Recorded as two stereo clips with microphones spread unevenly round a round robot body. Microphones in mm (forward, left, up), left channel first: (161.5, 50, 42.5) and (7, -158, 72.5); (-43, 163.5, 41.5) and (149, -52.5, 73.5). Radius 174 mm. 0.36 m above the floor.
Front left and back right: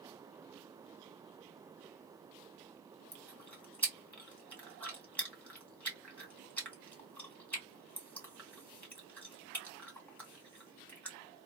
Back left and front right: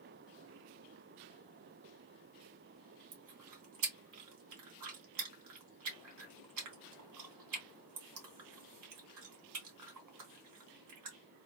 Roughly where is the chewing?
Ahead right.